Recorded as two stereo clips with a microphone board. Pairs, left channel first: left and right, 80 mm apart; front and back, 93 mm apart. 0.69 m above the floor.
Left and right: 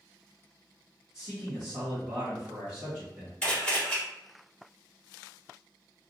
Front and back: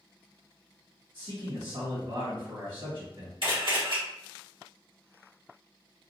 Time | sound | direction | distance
1.1 | a man speaking | 165° right | 1.6 m
3.4 | a camera shutter | 165° left | 1.9 m